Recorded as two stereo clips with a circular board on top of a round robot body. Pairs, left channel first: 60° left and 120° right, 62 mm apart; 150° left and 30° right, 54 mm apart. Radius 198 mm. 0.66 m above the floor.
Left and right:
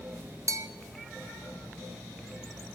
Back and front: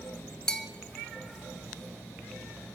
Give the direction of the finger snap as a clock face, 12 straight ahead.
No finger snap in this recording.